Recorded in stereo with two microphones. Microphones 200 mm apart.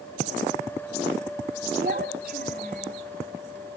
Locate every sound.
1.8 s a child speaking: 55° right (ahead or behind), 3 m; by 3.0 s 45° right (ahead or behind), 3.5 m